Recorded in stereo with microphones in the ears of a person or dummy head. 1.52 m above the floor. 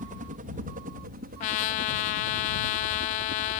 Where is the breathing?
I don't hear breathing.